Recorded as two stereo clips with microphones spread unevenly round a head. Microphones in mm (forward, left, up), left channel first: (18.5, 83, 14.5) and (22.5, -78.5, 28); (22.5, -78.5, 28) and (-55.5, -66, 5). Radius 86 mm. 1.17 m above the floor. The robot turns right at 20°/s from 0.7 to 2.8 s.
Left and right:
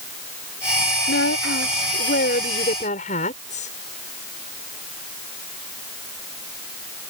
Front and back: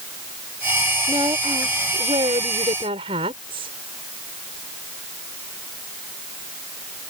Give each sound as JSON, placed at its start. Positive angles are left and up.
{"t": 1.1, "sound": "a woman speaking", "azimuth_deg": 105}